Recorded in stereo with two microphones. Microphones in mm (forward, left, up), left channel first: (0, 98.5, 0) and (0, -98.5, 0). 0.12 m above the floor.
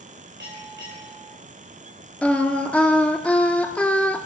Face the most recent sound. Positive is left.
turn(degrees=5)  # may be behind; listen again after turning